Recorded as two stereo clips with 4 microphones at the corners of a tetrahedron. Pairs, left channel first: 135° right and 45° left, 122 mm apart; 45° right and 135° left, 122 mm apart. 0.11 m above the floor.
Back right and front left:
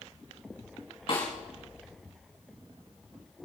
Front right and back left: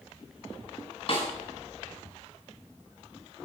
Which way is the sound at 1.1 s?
90° right.